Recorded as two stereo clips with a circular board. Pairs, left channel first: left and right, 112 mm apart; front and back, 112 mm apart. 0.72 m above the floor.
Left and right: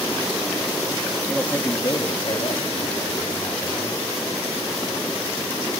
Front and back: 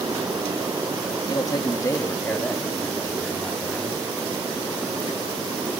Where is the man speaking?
10° left, 0.7 m; by 4.0 s 90° left, 1.9 m.